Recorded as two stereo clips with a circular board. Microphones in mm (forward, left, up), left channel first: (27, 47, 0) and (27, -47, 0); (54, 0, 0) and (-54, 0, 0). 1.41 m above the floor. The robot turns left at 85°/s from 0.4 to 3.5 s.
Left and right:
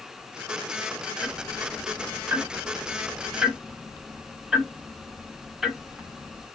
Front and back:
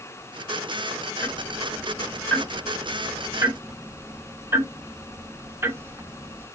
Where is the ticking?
20° left, 0.8 m; by 6.5 s 170° right, 0.8 m.